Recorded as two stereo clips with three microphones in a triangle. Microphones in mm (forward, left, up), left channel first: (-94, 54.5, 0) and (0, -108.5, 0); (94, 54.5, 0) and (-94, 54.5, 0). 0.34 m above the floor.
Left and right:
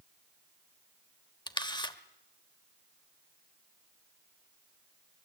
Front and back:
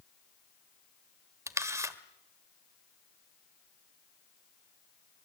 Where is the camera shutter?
130° left, 1.3 m.